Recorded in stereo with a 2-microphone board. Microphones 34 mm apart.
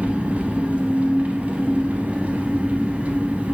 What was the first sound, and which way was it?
An engine running, 45° right (ahead or behind).